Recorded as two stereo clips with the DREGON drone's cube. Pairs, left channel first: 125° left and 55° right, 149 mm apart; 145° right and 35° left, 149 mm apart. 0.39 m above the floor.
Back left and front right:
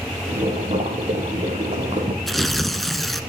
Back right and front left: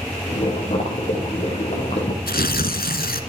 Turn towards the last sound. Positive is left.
turn(degrees=-145)